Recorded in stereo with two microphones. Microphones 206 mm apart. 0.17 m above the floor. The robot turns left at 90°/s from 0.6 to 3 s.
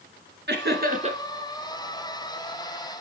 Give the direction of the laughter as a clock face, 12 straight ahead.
3 o'clock.